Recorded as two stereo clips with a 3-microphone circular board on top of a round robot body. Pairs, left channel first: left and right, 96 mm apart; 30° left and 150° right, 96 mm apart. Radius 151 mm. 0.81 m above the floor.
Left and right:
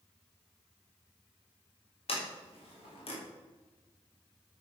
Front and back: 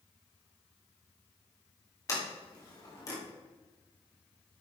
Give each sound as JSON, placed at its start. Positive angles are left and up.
{"t": 2.1, "sound": "a sliding door", "azimuth_deg": 85, "distance_m": 3.5}